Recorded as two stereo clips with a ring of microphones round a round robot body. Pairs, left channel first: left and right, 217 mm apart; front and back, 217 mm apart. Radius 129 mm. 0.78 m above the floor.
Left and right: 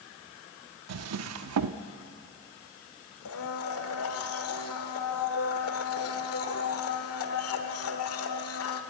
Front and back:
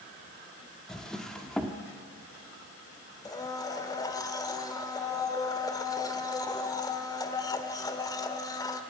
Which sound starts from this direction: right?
A drawer, at 0.9 s.